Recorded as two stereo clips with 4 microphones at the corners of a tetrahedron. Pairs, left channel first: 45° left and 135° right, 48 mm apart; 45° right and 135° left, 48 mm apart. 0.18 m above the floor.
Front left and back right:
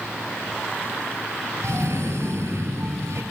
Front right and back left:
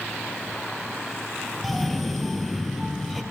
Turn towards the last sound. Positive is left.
turn(degrees=-135)